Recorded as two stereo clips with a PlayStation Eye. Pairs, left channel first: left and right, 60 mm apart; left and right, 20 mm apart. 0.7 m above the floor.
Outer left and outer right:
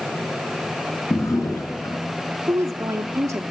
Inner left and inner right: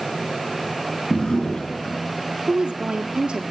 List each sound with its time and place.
1.1 s a drawer: 50° left (ahead or behind), 5 m
2.5 s a woman speaking: 55° right (ahead or behind), 1.4 m